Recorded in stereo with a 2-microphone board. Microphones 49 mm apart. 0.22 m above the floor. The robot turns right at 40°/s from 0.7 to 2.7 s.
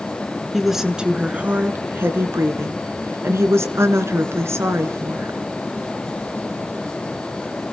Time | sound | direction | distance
0.5 | a woman speaking | 175° right | 2.5 m